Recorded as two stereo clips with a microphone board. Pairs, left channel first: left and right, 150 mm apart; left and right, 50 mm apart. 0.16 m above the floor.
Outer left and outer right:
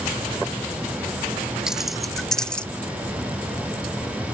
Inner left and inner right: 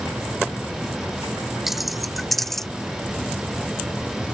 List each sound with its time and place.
1.7 s keys jangling: 5° right (ahead or behind); by 2.7 s 5° left (ahead or behind)